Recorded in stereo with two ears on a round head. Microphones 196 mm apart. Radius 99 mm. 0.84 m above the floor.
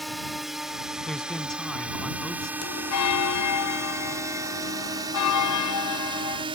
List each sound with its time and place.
0.0 s a drone: centre (ahead or behind); by 6.6 s 25° right (ahead or behind)
1.1 s a man speaking: 5° left (ahead or behind)
2.6 s a bell: 80° left